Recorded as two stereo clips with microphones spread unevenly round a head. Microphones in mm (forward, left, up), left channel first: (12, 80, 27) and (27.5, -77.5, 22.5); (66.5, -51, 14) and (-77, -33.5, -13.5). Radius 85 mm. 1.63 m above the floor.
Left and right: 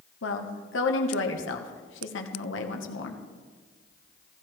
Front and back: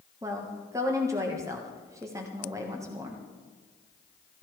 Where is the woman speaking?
95° left, 1.3 m.